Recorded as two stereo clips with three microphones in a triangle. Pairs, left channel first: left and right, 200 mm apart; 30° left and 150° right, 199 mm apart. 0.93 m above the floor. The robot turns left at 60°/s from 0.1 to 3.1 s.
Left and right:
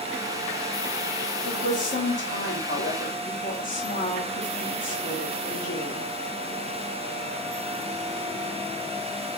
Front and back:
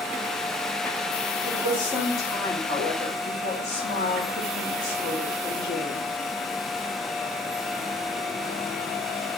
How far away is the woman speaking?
About 1.6 m.